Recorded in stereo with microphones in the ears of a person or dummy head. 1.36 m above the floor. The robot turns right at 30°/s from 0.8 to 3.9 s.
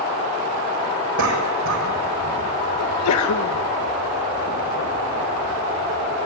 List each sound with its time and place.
1.2 s a cough: 70° right (ahead or behind), 6 m; by 2.4 s 75° right (ahead or behind), 6 m
2.8 s a sneeze: 75° left (ahead or behind), 2.0 m; by 3.6 s 70° left (ahead or behind), 2.0 m